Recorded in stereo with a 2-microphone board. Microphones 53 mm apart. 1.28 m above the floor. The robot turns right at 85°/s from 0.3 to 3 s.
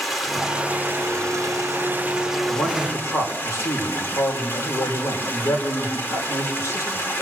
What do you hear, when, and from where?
0.0 s running water: straight behind, 3 m; by 7.2 s 50° left, 3 m
2.5 s a man speaking: 45° left, 5 m; by 7.1 s 90° left, 5 m